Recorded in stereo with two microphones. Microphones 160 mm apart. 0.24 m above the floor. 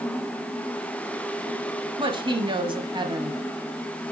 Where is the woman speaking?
30° right (ahead or behind), 1.2 m.